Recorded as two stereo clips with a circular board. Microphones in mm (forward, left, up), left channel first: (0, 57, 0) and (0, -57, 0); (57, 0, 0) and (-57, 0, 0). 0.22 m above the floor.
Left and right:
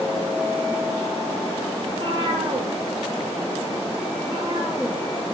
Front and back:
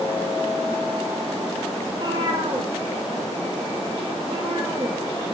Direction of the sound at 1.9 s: 130° right.